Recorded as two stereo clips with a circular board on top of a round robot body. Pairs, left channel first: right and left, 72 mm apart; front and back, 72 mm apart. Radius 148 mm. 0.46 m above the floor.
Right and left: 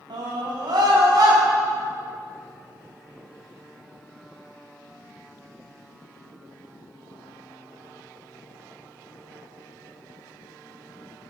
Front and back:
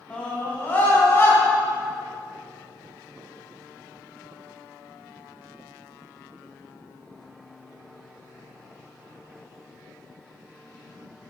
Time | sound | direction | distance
0.1 | a scream | 75° left | 5 m